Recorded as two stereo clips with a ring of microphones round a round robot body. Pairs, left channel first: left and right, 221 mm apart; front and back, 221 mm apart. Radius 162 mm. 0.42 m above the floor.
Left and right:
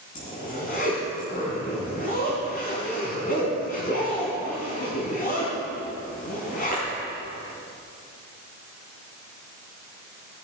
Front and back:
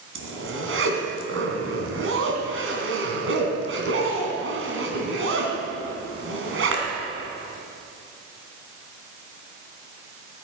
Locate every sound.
0.1 s a zipper: 155° left, 3 m